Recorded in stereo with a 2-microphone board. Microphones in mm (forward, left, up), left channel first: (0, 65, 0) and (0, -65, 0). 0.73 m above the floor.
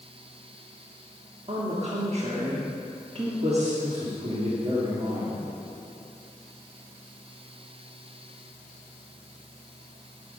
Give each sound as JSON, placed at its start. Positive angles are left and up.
{"t": 1.5, "sound": "a woman speaking", "side_deg": -50, "distance_m": 1.3}
{"t": 3.8, "sound": "a man speaking", "side_deg": -55, "distance_m": 1.8}